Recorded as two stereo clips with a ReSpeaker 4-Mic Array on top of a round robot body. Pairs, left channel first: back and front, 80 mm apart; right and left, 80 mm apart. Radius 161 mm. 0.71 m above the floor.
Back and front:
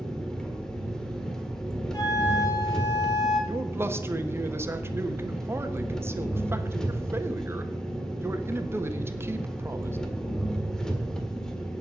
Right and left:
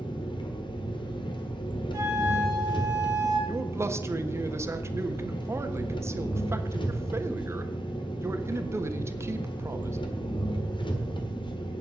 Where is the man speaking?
45° left, 1.5 m.